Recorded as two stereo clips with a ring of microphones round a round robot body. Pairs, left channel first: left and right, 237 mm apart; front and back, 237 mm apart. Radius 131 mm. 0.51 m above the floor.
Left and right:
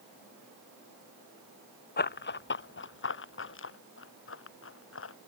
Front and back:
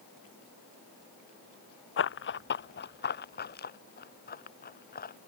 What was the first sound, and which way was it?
Running footsteps, 40° left.